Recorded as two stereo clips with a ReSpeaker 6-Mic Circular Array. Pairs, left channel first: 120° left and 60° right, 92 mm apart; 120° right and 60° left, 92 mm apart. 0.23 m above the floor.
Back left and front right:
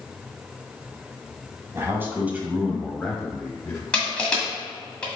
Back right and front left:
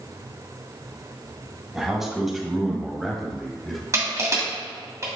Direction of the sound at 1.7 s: 25° right.